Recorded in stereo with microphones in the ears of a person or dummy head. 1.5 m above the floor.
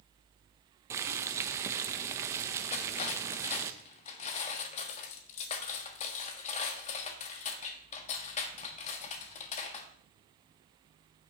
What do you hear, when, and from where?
0.9 s boiling: 20° right (ahead or behind), 0.7 m
2.7 s cutlery clinking: 35° left (ahead or behind), 1.3 m